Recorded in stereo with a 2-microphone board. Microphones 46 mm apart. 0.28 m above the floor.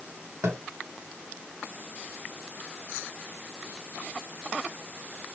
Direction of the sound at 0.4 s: 75° right (ahead or behind).